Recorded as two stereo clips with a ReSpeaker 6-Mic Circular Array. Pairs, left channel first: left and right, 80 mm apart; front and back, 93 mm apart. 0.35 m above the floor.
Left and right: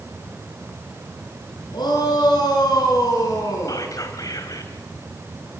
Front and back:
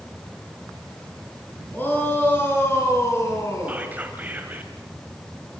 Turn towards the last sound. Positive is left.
turn(degrees=110)